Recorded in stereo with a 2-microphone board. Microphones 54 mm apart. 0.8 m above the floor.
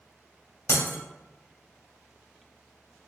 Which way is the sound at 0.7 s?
70° left (ahead or behind).